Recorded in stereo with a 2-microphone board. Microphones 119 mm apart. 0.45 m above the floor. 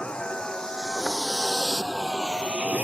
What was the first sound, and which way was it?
A vehicle, 10° left (ahead or behind).